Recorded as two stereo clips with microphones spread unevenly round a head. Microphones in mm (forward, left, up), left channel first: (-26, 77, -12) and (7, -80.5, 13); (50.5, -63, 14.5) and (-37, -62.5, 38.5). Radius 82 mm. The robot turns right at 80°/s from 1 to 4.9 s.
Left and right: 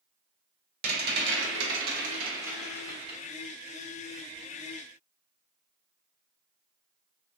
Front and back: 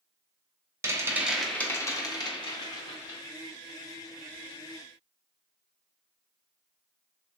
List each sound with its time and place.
0.8 s a rattle: 115° right, 1.0 m; by 3.2 s 60° left, 1.0 m